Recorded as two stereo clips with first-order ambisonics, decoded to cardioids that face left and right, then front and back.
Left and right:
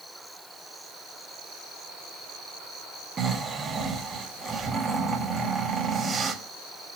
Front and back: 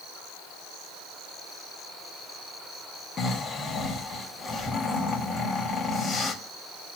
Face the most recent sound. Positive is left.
turn(degrees=-35)